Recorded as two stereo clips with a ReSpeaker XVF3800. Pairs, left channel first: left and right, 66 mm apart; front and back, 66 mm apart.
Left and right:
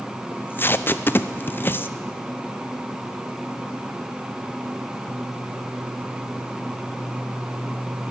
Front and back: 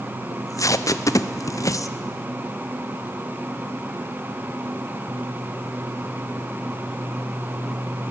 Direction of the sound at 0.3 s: 30° left.